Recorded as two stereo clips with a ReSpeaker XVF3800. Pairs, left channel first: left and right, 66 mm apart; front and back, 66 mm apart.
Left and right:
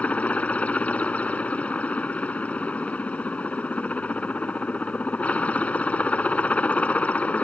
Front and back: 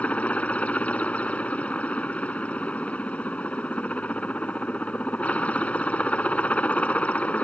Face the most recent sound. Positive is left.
turn(degrees=45)